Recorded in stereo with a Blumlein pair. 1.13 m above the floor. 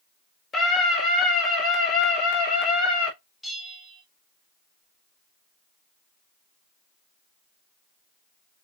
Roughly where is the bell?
Ahead.